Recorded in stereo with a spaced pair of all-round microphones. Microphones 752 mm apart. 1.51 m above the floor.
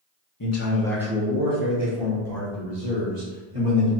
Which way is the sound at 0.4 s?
30° left (ahead or behind).